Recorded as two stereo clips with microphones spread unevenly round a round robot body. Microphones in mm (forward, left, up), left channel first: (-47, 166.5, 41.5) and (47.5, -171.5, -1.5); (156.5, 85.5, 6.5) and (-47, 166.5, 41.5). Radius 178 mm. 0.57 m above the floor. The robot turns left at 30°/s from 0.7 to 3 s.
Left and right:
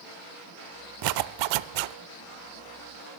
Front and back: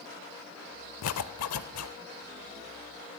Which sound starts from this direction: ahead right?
A zipper, at 1.0 s.